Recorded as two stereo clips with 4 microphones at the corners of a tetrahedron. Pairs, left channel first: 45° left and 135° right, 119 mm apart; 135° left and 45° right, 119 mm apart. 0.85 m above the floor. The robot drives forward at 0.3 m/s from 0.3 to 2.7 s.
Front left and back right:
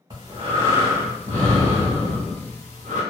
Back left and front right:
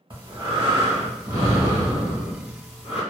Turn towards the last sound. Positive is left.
turn(degrees=-120)